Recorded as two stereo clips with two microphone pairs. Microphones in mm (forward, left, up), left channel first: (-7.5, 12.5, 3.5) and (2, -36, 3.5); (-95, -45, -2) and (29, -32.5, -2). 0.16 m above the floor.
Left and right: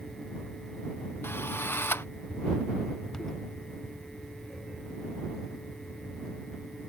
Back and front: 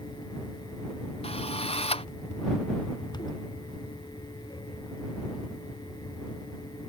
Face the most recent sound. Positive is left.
turn(degrees=145)